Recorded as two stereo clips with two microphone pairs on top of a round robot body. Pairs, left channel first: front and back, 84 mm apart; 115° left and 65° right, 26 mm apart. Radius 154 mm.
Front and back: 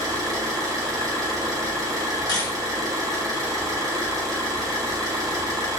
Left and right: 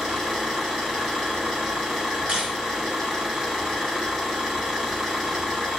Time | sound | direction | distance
0.0 | an engine running | 130° right | 0.7 m
2.3 | a camera shutter | 20° right | 1.5 m